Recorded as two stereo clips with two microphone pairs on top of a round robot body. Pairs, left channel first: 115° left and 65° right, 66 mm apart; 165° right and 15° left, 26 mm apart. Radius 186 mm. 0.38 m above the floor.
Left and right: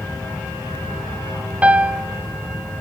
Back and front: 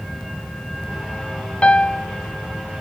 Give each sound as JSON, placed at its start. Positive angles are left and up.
{"t": 1.6, "sound": "a piano", "azimuth_deg": -145, "distance_m": 0.9}